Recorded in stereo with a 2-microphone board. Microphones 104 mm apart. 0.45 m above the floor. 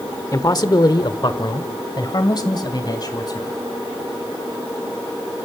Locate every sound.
0.3 s a man speaking: 40° left (ahead or behind), 1.0 m; by 3.6 s 45° left (ahead or behind), 3 m